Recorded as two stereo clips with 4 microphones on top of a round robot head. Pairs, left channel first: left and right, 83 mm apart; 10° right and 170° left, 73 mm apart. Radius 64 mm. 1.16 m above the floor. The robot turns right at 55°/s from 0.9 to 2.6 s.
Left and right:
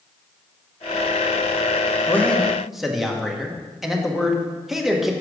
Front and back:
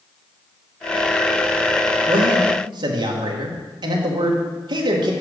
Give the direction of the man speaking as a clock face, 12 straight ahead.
7 o'clock.